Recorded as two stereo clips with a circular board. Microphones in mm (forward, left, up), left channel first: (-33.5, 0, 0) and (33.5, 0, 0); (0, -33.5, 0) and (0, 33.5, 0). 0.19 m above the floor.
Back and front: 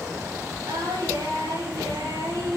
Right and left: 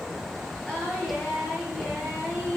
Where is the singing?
15° right, 7 m.